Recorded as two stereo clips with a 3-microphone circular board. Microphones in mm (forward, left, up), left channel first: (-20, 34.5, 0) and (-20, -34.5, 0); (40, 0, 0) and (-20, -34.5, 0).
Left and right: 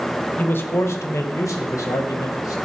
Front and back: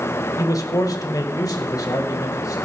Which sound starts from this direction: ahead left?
A man speaking, at 0.4 s.